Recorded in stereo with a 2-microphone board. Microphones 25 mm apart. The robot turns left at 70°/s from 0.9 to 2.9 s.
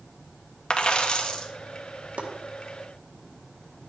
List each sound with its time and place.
0.7 s a dropped coin: 95° left, 1.0 m; by 1.5 s 55° left, 1.0 m
2.2 s chopping: 75° right (ahead or behind), 1.5 m